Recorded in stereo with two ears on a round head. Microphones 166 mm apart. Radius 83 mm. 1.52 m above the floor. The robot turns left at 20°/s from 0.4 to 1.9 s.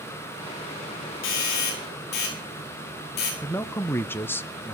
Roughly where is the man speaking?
Centre.